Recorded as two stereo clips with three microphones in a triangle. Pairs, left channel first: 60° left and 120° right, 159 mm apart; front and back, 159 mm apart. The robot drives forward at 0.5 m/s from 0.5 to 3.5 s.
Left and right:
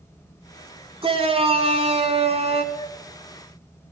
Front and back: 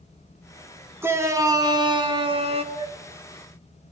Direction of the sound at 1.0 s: 115° right.